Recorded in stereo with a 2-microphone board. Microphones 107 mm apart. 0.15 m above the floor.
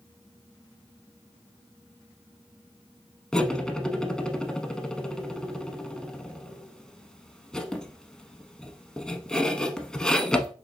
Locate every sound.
3.3 s cutlery clinking: 5° left (ahead or behind), 0.6 m